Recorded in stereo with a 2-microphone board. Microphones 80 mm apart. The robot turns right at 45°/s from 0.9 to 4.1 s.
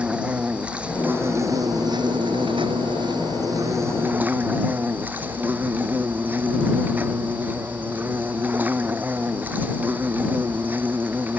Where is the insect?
165° right; by 11.4 s 20° right.